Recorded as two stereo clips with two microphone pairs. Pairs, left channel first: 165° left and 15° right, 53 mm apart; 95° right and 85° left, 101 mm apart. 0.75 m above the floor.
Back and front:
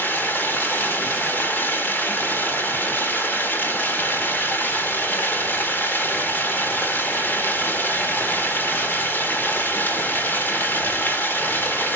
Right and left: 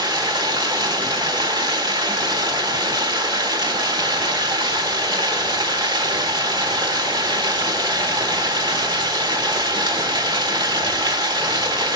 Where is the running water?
120° left, 1.5 m.